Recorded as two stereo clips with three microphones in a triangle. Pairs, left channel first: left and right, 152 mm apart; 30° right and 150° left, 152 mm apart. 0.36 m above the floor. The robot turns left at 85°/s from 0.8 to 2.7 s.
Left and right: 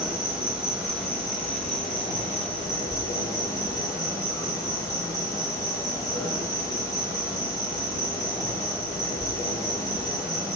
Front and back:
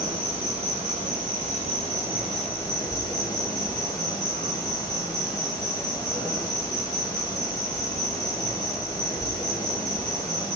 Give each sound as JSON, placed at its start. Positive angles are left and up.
{"t": 0.0, "sound": "an insect", "azimuth_deg": -170, "distance_m": 1.0}